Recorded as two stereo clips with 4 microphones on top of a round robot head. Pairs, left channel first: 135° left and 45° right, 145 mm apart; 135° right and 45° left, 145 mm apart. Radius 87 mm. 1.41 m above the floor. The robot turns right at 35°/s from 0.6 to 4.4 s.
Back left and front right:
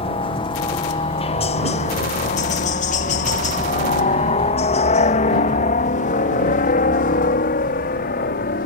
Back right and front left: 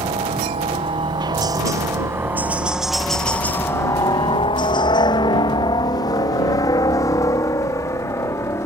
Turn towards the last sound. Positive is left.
turn(degrees=155)